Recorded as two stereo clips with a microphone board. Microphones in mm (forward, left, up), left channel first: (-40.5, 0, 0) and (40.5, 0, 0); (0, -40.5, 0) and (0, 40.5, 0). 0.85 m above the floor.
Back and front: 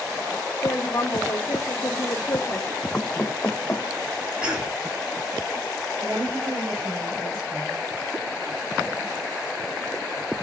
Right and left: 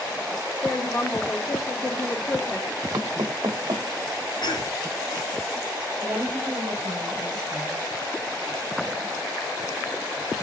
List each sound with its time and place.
0.6 s a woman speaking: 135° right, 1.6 m
2.9 s knocking: 110° left, 0.8 m
4.4 s a cough: 80° right, 2.5 m
6.0 s a woman speaking: 40° left, 4.5 m